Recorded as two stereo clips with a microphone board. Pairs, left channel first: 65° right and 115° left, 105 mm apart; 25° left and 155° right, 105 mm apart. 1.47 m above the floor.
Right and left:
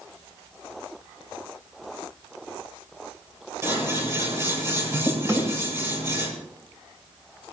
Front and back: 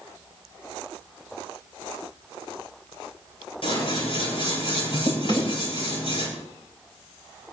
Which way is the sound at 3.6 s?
50° left.